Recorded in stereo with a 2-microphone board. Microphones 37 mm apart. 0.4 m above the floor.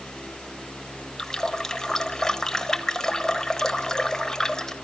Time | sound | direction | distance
1.2 | a running tap | 15° left (ahead or behind) | 0.9 m